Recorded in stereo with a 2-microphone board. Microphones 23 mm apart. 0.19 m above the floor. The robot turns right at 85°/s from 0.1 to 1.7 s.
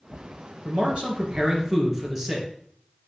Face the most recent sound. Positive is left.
turn(degrees=-20)